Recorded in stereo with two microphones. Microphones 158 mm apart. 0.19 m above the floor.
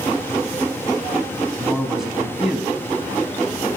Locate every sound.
1.6 s a man speaking: centre (ahead or behind), 1.1 m